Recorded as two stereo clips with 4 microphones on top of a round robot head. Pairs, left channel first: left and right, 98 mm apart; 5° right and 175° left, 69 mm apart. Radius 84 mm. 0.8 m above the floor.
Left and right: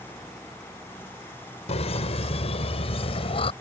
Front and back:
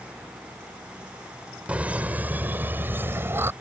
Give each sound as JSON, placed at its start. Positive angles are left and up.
{"t": 1.7, "sound": "laughter", "azimuth_deg": 105}